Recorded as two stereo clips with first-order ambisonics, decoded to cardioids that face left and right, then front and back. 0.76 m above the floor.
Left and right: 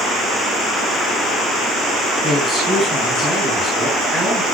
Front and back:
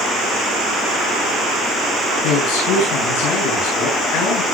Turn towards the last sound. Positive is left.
turn(degrees=0)